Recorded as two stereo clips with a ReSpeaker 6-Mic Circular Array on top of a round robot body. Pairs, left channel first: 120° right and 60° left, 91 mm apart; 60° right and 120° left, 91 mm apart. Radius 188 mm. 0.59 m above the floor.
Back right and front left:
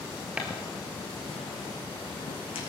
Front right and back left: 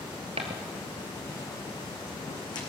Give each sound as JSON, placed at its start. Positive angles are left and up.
{"t": 0.4, "sound": "footsteps", "azimuth_deg": 140, "distance_m": 0.7}